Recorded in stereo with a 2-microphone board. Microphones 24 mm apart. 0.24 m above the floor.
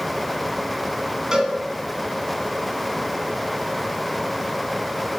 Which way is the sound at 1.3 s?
30° right (ahead or behind).